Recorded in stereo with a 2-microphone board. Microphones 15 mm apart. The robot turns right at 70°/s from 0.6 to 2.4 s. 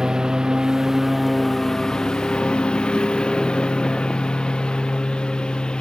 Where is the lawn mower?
45° right; by 5.8 s 80° left.